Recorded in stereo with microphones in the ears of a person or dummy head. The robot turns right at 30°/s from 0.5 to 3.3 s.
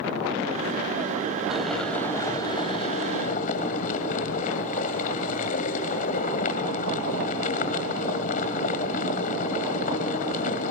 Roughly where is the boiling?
Ahead.